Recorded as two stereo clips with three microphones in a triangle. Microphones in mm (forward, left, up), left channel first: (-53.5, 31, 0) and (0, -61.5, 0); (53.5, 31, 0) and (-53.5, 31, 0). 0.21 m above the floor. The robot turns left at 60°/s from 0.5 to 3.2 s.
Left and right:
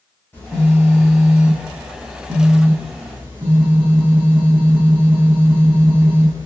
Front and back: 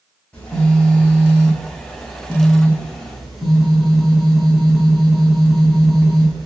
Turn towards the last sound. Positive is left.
turn(degrees=-90)